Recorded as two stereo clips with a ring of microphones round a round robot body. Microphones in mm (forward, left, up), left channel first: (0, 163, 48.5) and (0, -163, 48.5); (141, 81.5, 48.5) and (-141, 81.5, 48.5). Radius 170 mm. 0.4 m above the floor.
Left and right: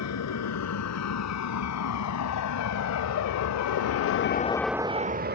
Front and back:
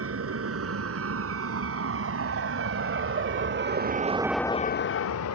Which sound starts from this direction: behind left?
A vehicle, at 0.0 s.